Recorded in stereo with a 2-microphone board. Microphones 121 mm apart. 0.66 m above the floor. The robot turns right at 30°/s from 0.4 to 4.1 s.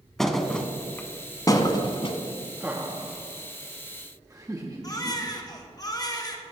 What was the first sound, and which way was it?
A thud, 5° left (ahead or behind).